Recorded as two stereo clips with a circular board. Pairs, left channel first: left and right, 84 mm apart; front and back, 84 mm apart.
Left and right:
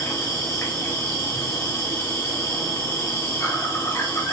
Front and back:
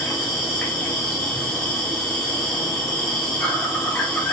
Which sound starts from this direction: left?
An insect, at 0.0 s.